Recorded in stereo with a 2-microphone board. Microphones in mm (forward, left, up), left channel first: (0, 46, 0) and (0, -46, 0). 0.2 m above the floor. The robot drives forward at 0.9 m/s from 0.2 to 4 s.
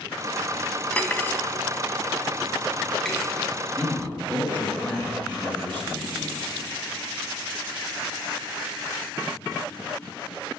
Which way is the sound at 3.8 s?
20° left (ahead or behind).